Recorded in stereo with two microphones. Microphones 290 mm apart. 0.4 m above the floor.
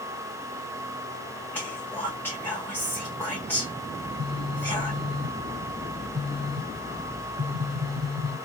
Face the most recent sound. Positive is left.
turn(degrees=-60)  # may be behind; listen again after turning